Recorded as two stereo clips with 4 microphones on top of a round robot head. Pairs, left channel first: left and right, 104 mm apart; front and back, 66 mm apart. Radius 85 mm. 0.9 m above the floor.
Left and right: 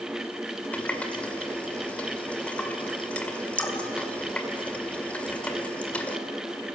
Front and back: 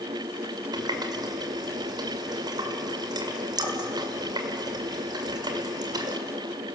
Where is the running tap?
170° left, 1.9 m.